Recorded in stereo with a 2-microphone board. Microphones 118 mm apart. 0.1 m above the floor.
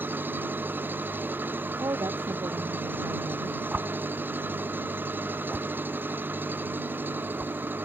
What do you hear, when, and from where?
0.0 s an engine running: 20° right (ahead or behind)
1.8 s a woman speaking: 30° right (ahead or behind)
3.7 s a whoosh: 10° right (ahead or behind)